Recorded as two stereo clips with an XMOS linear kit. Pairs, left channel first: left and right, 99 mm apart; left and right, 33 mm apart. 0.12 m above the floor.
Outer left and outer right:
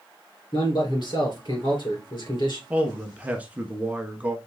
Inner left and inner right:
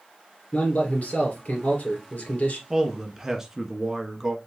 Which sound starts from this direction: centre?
A man speaking, at 2.7 s.